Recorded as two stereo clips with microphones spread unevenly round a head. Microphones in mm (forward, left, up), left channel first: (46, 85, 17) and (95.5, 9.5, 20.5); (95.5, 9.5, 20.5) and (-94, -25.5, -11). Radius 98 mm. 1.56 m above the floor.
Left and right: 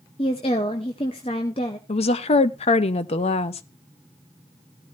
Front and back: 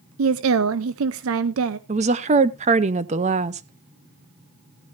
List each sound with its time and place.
0.2 s a woman speaking: 170° left, 0.6 m
1.9 s a woman speaking: 130° left, 0.7 m